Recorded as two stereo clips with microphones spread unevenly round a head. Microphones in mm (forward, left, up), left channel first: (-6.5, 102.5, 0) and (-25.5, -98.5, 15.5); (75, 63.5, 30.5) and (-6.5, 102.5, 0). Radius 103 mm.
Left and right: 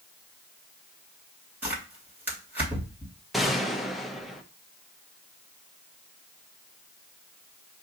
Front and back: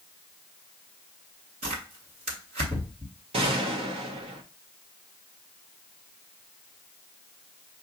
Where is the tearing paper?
175° right, 2 m.